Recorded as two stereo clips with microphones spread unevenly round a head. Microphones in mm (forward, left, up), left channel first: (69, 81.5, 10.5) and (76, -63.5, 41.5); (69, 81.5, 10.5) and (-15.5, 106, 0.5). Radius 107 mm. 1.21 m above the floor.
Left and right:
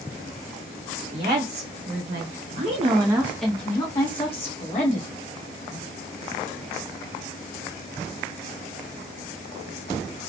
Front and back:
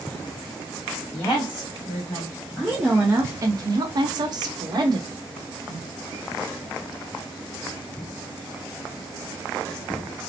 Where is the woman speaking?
75° right, 1.1 m; by 5.1 s 130° left, 1.1 m.